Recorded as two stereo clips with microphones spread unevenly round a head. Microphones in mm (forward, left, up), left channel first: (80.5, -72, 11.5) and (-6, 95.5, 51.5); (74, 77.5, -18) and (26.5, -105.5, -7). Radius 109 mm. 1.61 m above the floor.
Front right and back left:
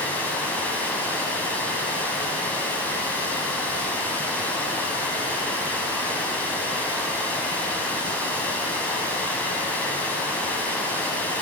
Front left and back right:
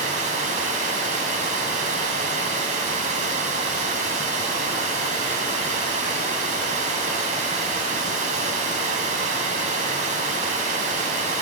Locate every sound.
0.0 s running water: 155° right, 3 m